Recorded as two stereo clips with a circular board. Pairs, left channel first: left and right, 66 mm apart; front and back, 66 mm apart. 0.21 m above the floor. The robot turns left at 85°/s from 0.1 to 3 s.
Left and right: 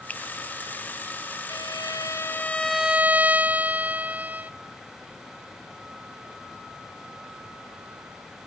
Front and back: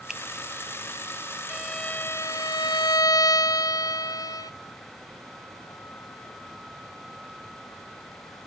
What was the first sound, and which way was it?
A finger snap, 110° left.